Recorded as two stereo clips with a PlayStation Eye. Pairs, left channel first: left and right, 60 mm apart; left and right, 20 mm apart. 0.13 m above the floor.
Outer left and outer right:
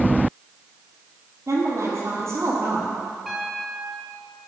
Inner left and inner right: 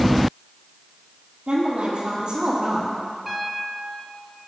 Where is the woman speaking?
55° right (ahead or behind), 4 m; by 3.0 s 45° right (ahead or behind), 4.5 m.